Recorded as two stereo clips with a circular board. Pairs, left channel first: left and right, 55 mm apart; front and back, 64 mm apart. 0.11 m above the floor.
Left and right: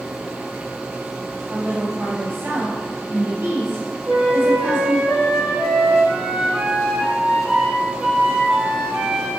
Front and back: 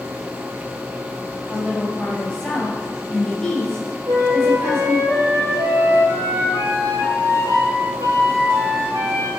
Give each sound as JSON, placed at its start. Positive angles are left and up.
{"t": 1.5, "sound": "a woman speaking", "azimuth_deg": -70, "distance_m": 2.5}
{"t": 4.1, "sound": "a flute", "azimuth_deg": -175, "distance_m": 1.8}